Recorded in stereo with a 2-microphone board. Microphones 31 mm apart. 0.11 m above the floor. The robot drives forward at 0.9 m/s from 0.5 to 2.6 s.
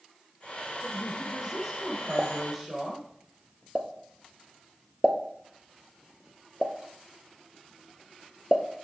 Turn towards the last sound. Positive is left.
turn(degrees=-35)  # may be behind; listen again after turning